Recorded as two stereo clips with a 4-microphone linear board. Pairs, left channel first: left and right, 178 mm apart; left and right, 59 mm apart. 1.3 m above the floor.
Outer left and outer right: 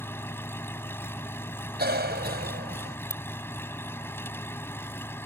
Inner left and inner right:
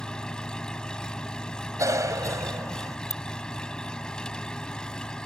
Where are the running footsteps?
No running footsteps in this recording.